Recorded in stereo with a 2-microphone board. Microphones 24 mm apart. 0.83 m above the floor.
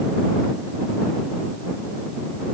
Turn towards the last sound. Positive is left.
No sound to turn to.